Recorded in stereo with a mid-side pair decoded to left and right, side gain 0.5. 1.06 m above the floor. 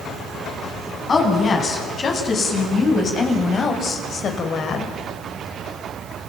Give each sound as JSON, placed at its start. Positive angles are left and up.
{"t": 1.1, "sound": "a woman speaking", "azimuth_deg": 40, "distance_m": 8.5}